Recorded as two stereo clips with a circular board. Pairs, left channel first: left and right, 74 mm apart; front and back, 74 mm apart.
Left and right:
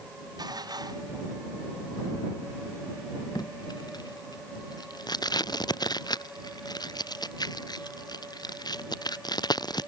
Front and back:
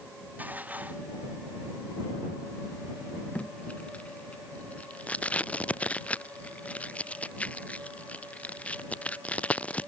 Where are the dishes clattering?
115° right.